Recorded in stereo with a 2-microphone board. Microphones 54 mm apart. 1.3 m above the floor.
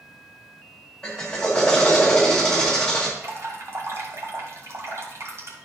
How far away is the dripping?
About 2 m.